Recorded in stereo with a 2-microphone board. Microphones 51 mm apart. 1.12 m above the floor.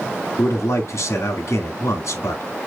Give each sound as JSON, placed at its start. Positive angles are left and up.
{"t": 0.4, "sound": "a man speaking", "side_deg": 70, "distance_m": 2.0}